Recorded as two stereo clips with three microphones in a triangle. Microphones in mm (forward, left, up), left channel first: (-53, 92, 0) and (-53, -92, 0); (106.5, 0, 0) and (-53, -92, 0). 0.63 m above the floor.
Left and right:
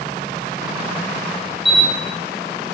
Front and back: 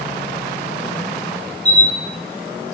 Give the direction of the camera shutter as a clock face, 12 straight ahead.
8 o'clock.